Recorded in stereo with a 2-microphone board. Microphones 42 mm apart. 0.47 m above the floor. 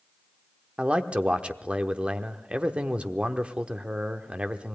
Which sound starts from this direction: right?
A man speaking, at 0.8 s.